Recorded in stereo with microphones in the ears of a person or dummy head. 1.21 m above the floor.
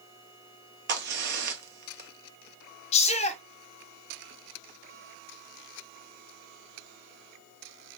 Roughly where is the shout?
Left.